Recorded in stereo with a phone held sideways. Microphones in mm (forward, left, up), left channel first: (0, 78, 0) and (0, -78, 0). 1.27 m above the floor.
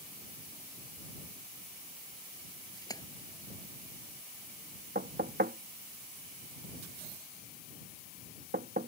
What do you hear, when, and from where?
2.8 s a splash: 20° left (ahead or behind)
5.0 s knocking: 85° right